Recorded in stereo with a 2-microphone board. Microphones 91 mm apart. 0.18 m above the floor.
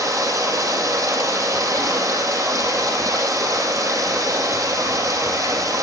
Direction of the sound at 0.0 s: 35° right (ahead or behind).